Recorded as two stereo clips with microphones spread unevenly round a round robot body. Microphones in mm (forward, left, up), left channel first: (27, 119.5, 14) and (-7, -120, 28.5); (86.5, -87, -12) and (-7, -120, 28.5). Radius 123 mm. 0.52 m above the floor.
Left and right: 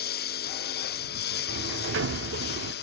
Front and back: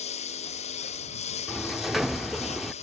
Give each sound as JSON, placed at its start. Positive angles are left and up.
{"t": 0.0, "sound": "a lawn mower", "azimuth_deg": 30}
{"t": 1.5, "sound": "a sliding door", "azimuth_deg": -60}